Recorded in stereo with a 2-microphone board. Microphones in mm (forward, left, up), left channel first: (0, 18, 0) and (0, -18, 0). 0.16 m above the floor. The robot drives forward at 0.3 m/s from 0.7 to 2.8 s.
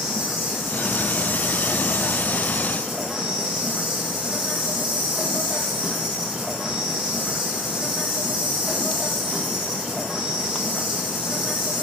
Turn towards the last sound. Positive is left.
turn(degrees=-10)  # may be behind; listen again after turning